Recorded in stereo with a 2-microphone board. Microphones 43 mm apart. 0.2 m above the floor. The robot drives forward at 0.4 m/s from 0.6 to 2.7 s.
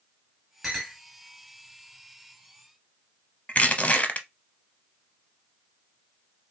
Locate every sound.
0.6 s a clink: 10° right (ahead or behind), 2.0 m; by 1.0 s 15° right (ahead or behind), 1.9 m
3.5 s crushing: 35° left (ahead or behind), 0.7 m